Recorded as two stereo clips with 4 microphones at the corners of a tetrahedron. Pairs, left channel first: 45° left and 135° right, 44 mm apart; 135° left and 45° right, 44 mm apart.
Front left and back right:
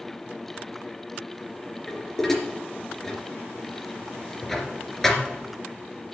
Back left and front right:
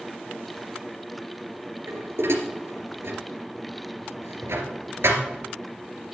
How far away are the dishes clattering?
About 2.5 m.